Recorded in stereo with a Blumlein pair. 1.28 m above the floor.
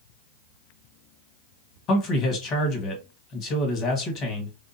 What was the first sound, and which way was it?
A man speaking, 35° left.